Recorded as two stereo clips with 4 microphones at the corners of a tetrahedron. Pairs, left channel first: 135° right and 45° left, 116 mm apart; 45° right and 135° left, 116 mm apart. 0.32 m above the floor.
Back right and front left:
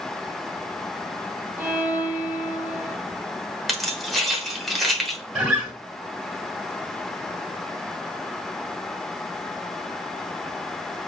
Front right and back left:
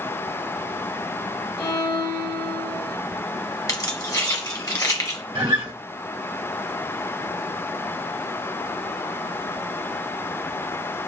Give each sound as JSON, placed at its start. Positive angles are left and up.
{"t": 1.6, "sound": "a violin", "azimuth_deg": -20, "distance_m": 0.8}
{"t": 3.7, "sound": "keys jangling", "azimuth_deg": -45, "distance_m": 0.9}
{"t": 5.3, "sound": "a guitar", "azimuth_deg": 120, "distance_m": 1.3}